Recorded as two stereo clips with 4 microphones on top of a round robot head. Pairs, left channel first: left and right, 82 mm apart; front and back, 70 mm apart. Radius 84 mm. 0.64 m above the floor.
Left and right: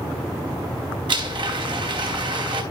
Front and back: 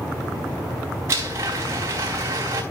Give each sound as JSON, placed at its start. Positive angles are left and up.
{"t": 1.1, "sound": "a blender", "azimuth_deg": -125, "distance_m": 4.5}